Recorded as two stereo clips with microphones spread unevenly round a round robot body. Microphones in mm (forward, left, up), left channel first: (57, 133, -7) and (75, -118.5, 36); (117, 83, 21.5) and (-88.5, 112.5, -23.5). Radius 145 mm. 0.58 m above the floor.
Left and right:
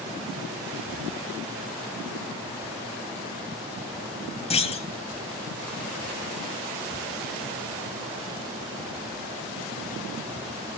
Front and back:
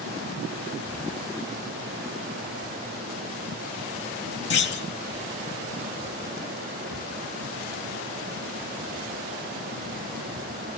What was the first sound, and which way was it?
A clunk, 25° left.